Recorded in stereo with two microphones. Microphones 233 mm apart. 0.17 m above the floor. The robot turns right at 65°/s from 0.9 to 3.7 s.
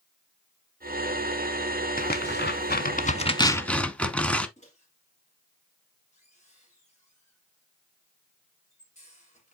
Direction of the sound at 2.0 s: 40° left (ahead or behind).